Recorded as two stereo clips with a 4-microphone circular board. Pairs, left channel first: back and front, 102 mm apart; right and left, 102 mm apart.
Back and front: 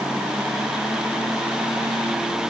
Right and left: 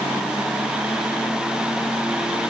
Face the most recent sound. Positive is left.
No sound to turn to.